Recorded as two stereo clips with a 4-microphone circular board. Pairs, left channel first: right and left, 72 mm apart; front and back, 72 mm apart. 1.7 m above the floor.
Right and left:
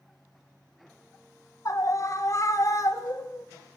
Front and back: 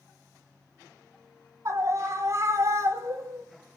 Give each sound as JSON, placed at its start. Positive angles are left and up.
{"t": 1.6, "sound": "a scream", "azimuth_deg": -135, "distance_m": 3.0}